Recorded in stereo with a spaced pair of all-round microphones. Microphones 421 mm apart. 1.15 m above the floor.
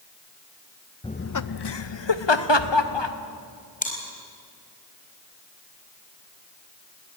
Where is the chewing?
20° left (ahead or behind), 4.5 m.